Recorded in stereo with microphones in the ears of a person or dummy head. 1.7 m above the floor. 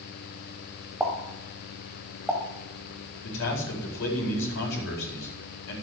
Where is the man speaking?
70° left (ahead or behind), 4.5 m.